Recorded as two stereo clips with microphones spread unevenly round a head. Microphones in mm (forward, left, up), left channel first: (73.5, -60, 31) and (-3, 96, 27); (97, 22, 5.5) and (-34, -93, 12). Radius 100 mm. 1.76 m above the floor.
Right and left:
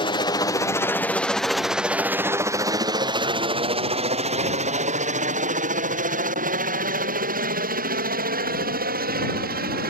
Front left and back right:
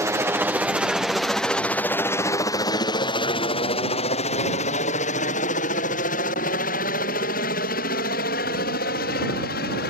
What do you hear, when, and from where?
0.0 s a helicopter: 80° right; by 9.9 s 85° left